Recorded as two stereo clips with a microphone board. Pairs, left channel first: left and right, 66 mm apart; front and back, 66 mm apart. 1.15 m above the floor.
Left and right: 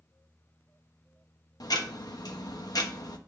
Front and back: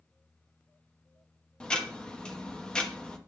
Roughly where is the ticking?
Left.